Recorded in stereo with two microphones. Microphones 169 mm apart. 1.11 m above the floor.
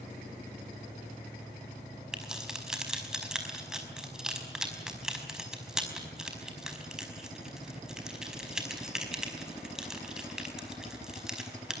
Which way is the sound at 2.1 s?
5° right (ahead or behind).